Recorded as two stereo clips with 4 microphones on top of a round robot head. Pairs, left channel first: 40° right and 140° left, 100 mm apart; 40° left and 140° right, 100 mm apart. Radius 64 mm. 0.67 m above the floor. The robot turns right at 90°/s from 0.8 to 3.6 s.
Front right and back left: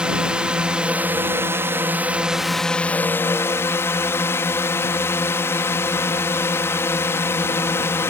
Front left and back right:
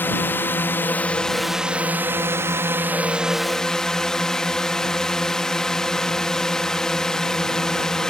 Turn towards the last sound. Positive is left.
turn(degrees=-35)